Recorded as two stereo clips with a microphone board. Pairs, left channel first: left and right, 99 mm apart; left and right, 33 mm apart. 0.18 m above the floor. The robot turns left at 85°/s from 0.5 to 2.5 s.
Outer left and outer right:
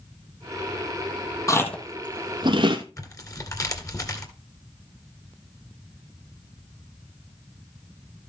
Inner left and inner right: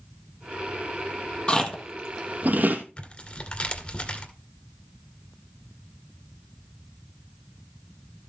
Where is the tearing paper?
35° left (ahead or behind), 2 m.